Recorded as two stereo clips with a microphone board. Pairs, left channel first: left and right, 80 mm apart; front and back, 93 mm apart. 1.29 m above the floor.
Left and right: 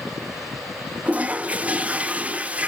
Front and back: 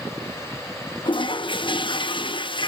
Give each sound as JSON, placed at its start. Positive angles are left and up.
{"t": 1.1, "sound": "a toilet flushing", "azimuth_deg": -20, "distance_m": 0.6}